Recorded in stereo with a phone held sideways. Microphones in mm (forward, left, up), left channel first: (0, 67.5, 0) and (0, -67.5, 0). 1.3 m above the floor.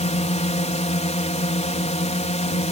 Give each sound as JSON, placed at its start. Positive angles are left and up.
{"t": 0.0, "sound": "a drone", "side_deg": 55}